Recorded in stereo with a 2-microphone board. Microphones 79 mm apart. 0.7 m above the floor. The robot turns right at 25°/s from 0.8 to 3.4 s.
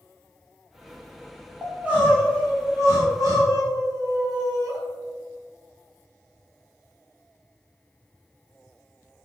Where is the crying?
170° right, 3.5 m; by 4.8 s 125° right, 3.5 m.